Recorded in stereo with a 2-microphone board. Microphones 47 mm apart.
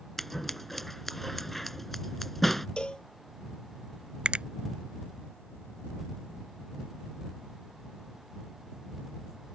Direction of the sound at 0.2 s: 5° left (ahead or behind).